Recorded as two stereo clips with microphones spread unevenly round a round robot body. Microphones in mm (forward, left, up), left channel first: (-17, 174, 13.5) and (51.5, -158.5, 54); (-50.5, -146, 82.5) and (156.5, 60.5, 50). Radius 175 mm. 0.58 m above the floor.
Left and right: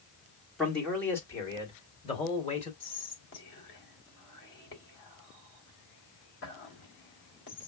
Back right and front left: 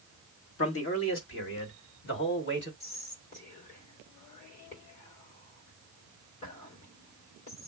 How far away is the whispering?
About 3 m.